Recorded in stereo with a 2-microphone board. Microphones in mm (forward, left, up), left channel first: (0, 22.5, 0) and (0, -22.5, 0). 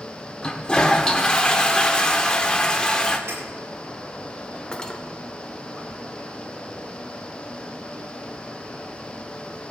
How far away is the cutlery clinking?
About 1.0 m.